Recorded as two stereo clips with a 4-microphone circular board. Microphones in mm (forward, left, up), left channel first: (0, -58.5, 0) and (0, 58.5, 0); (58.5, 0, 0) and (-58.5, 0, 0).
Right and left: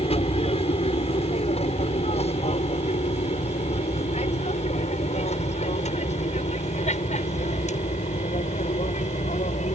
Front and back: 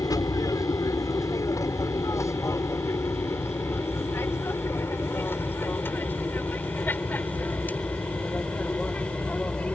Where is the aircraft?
60° right; by 9.8 s 80° right.